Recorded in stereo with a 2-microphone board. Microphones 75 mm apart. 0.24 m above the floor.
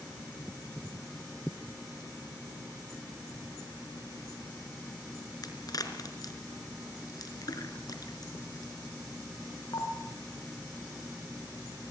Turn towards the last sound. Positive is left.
turn(degrees=55)  # may be behind; listen again after turning